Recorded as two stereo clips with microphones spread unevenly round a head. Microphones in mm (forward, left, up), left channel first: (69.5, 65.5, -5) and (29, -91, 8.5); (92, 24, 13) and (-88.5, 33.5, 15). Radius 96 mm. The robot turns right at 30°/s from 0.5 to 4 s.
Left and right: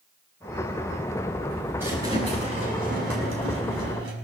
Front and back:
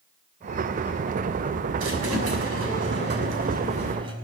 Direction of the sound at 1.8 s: 175° left.